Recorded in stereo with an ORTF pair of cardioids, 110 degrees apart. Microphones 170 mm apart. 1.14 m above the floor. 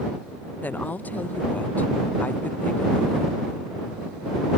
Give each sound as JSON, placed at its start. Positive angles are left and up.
{"t": 0.6, "sound": "a woman speaking", "azimuth_deg": 10}